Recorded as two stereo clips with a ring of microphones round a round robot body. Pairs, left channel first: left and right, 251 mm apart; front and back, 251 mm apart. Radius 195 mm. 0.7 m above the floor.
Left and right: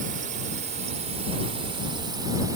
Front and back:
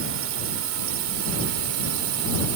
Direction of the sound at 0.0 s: 150° right.